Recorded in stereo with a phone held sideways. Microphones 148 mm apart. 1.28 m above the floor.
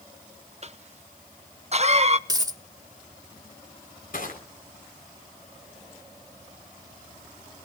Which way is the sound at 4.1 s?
65° left (ahead or behind).